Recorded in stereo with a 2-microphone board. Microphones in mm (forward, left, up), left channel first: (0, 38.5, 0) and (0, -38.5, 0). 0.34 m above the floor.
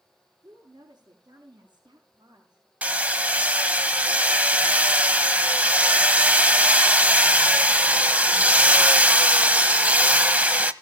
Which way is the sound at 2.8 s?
20° right (ahead or behind).